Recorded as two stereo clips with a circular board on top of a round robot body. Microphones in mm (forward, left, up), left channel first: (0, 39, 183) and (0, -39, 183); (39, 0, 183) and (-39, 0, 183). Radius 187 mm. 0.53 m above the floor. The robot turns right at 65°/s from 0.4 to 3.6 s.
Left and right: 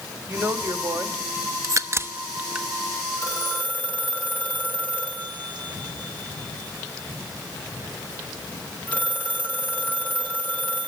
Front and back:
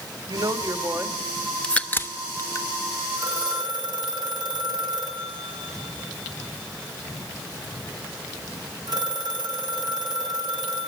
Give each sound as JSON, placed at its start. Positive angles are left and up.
{"t": 0.3, "sound": "a woman speaking", "azimuth_deg": -155, "distance_m": 3.0}
{"t": 1.6, "sound": "a crack", "azimuth_deg": -75, "distance_m": 1.3}
{"t": 3.2, "sound": "a phone ringing", "azimuth_deg": 130, "distance_m": 5.5}